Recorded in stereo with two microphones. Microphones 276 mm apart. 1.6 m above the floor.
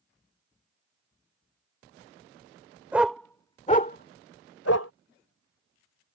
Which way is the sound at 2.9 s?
5° right (ahead or behind).